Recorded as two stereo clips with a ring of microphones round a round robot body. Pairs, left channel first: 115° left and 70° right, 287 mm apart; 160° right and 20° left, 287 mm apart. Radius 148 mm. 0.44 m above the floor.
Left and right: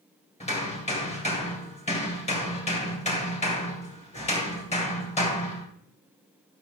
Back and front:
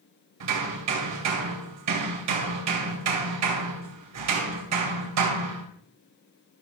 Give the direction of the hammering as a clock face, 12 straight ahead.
10 o'clock.